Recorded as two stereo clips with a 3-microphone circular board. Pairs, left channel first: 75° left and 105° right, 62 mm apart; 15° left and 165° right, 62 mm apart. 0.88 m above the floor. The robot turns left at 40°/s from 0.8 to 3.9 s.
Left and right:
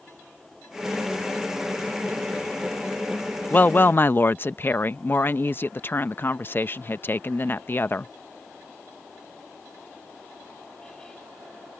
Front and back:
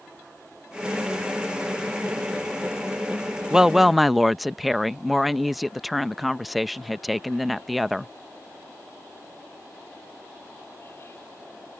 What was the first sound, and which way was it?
A woman speaking, 120° left.